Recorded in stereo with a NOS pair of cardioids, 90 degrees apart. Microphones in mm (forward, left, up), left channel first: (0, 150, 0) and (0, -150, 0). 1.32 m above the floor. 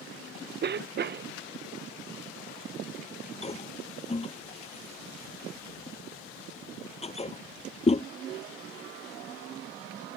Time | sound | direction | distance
0.6 | a cough | 35° right | ?
3.4 | a toilet flushing | 20° left | ?